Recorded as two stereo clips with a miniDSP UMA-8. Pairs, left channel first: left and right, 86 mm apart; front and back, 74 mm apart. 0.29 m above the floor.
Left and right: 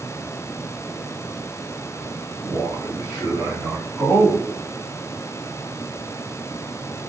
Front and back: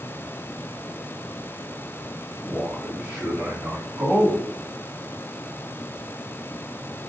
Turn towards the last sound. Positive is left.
turn(degrees=130)